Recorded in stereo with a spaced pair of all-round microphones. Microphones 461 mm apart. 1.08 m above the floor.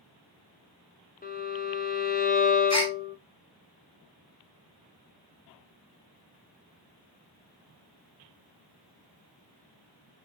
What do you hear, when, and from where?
1.2 s a violin: 20° left (ahead or behind), 0.6 m
2.7 s a gasp: 35° left (ahead or behind), 0.8 m